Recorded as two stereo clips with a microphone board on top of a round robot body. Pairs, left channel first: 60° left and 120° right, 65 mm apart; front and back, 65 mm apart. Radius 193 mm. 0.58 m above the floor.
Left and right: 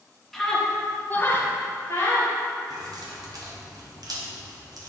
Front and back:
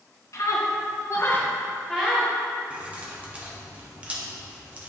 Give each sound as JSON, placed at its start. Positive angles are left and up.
{"t": 0.3, "sound": "a scream", "azimuth_deg": -25, "distance_m": 1.9}
{"t": 2.7, "sound": "keys jangling", "azimuth_deg": -110, "distance_m": 1.2}